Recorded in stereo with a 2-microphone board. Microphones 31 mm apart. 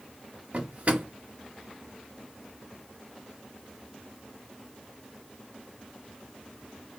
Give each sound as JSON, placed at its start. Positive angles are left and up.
{"t": 0.5, "sound": "a drawer", "side_deg": -50, "distance_m": 0.6}